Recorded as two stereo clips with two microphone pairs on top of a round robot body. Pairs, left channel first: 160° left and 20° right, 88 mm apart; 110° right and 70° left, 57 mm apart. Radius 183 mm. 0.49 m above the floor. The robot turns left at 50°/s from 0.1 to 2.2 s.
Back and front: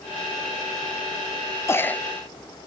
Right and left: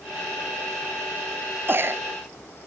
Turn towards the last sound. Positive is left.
turn(degrees=70)